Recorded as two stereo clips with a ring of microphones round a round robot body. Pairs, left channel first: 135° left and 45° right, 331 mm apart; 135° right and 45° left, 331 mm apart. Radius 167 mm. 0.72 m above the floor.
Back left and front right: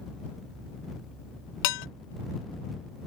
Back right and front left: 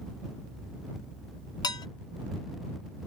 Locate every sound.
1.6 s dishes clattering: 145° left